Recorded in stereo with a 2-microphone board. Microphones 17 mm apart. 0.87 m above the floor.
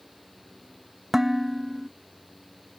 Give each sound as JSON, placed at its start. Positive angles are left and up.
{"t": 1.1, "sound": "dishes clattering", "side_deg": -25}